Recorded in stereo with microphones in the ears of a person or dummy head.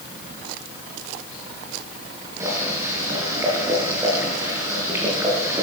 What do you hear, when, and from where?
2.4 s boiling: 15° right (ahead or behind), 7 m